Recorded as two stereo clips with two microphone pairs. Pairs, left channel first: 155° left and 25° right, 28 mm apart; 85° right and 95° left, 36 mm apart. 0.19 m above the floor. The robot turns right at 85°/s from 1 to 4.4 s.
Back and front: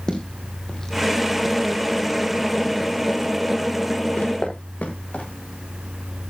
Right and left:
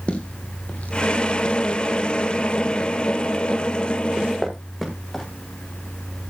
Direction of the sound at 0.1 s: 145° right.